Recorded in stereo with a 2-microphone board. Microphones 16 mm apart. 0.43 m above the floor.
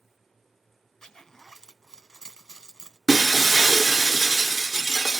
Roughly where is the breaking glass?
Centre.